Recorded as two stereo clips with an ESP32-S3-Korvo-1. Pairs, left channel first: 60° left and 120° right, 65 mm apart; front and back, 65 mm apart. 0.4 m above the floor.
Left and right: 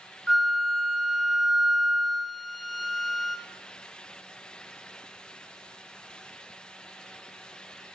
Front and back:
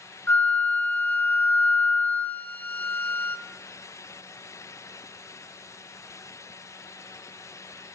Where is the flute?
30° right, 0.9 m.